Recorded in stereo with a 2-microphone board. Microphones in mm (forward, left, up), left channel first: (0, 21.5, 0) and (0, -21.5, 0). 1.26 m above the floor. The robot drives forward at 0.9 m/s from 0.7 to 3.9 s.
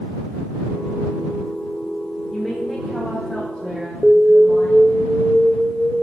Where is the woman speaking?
10° left (ahead or behind), 0.9 m; by 5.0 s 5° left (ahead or behind), 2.5 m.